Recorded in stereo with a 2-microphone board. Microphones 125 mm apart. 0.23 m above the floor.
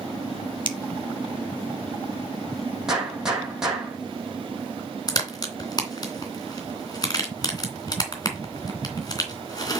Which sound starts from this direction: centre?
A gunshot, at 2.9 s.